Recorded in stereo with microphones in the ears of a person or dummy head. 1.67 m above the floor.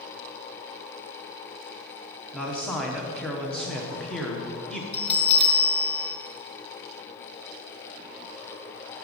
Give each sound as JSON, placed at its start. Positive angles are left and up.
{"t": 2.3, "sound": "a man speaking", "side_deg": 5, "distance_m": 0.9}
{"t": 4.9, "sound": "a bell", "side_deg": 35, "distance_m": 0.9}